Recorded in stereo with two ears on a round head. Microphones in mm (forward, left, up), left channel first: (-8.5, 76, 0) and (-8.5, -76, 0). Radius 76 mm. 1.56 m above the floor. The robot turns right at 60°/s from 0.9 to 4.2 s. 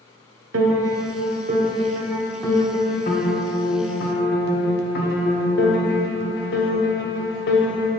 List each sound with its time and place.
0.5 s a piano: 85° right, 1.0 m; by 7.9 s 115° left, 1.0 m